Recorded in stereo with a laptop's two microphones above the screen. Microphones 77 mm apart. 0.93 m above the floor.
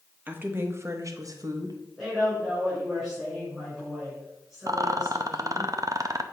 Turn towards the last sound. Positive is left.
turn(degrees=-50)  # may be behind; listen again after turning